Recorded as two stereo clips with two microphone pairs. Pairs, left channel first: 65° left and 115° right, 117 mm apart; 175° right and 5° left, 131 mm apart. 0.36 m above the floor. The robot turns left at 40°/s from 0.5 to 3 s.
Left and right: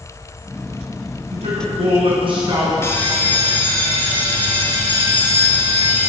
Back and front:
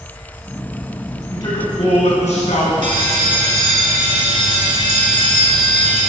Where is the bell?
Straight ahead, 1.8 m; by 6.1 s 10° right, 1.8 m.